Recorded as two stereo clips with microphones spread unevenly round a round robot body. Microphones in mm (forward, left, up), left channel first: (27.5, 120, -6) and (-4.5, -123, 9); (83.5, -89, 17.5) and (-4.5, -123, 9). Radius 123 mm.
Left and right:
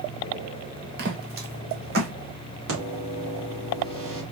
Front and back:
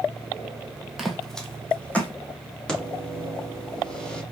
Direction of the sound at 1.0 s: 70° right.